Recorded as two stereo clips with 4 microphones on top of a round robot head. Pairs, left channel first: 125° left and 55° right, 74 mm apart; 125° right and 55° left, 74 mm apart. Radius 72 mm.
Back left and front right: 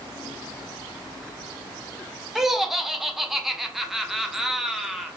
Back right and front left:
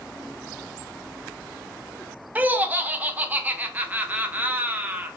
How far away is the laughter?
About 0.6 m.